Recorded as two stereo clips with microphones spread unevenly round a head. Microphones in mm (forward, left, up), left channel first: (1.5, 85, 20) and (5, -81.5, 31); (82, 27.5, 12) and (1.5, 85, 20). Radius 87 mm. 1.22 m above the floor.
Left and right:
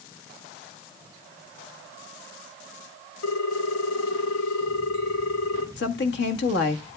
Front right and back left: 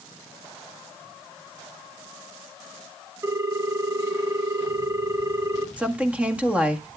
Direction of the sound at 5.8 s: 65° left.